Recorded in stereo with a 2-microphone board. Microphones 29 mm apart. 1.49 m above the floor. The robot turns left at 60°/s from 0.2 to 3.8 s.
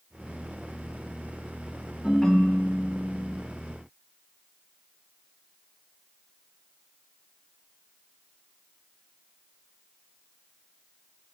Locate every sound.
2.0 s a ringtone: 5° left (ahead or behind), 0.8 m; by 3.4 s 25° left (ahead or behind), 0.8 m